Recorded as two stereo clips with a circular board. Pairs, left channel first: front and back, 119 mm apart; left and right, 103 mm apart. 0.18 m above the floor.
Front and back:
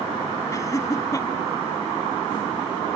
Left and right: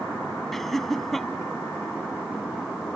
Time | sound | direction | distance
0.5 | laughter | 5° left | ?